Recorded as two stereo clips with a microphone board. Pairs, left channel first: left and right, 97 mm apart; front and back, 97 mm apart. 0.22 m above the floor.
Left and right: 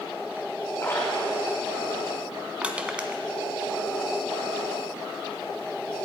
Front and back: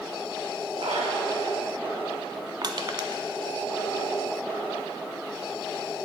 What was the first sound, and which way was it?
A splash, 155° left.